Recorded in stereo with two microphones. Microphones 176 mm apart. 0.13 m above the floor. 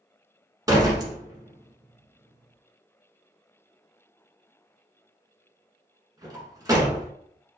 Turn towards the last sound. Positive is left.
turn(degrees=-20)  # may be behind; listen again after turning